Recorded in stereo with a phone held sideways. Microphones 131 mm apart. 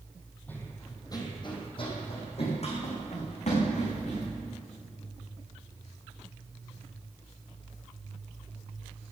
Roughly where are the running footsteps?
Centre.